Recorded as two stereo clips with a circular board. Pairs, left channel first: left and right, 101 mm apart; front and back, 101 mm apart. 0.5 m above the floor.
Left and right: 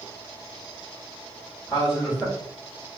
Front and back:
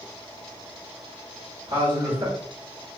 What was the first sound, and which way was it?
A man speaking, 170° left.